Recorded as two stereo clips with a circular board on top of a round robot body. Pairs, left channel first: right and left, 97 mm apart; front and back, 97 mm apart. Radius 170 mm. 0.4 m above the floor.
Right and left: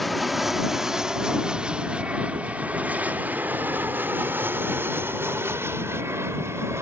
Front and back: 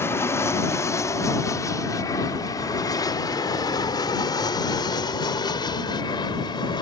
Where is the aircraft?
Straight ahead; by 6.8 s 30° left.